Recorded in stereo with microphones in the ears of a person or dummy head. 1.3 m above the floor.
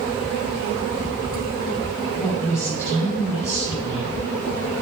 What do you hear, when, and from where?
2.1 s a woman speaking: 20° left (ahead or behind), 6 m